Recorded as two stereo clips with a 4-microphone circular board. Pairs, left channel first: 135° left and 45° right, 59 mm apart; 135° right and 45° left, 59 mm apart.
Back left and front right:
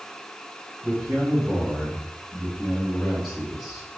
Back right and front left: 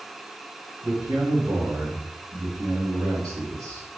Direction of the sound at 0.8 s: 15° left.